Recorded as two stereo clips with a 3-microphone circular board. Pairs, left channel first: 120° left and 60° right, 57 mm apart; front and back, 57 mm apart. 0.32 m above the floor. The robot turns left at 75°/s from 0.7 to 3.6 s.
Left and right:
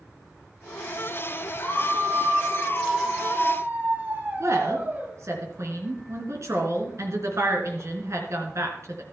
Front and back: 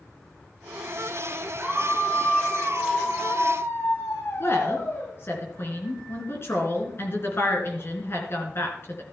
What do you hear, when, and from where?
1.6 s a scream: 135° left, 1.7 m; by 5.1 s 15° right, 1.7 m
4.4 s a woman speaking: 40° right, 3.5 m